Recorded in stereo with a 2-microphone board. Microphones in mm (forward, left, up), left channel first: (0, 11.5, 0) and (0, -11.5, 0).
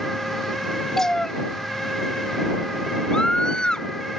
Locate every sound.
1.0 s a cat meowing: 20° left (ahead or behind)
3.1 s a scream: 40° left (ahead or behind)